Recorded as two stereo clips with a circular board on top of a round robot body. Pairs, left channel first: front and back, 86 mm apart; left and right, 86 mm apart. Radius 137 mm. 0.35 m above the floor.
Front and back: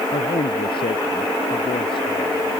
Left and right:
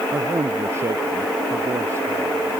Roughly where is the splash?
No splash in this recording.